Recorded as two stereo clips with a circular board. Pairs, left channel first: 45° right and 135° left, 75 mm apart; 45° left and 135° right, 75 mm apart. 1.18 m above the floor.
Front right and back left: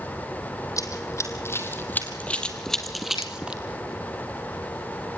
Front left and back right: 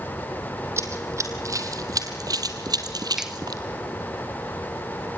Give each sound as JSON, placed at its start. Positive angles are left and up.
{"t": 0.8, "sound": "running footsteps", "azimuth_deg": -85, "distance_m": 3.0}
{"t": 3.2, "sound": "a finger snap", "azimuth_deg": -50, "distance_m": 1.1}